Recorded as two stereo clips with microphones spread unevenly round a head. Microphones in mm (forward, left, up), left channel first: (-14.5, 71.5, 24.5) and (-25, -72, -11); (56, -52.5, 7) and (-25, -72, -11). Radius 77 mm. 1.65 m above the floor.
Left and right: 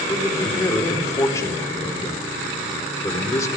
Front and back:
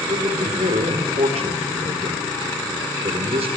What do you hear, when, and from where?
0.1 s a man speaking: 155° left, 4 m